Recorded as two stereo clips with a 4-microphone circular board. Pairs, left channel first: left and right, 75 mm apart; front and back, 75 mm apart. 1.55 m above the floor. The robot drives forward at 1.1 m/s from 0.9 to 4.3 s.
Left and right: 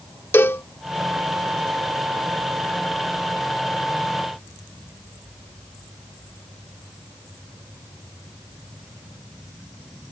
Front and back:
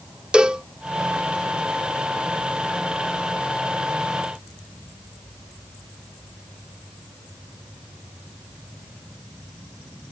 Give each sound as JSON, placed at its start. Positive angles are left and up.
{"t": 0.3, "sound": "a cowbell", "azimuth_deg": 110}